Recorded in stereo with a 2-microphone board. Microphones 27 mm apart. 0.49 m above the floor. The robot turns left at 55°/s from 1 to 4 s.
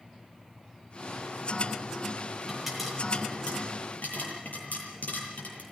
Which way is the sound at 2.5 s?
15° right (ahead or behind).